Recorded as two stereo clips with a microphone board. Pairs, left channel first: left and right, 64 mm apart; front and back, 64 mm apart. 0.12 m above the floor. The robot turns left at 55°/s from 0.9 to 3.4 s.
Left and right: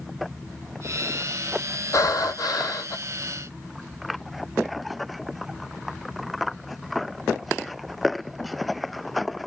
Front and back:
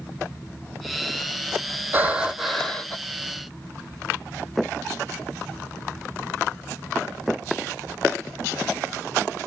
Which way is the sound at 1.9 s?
120° left.